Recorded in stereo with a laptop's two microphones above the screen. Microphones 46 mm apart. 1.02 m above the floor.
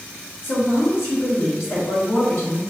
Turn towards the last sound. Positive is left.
turn(degrees=50)  # may be behind; listen again after turning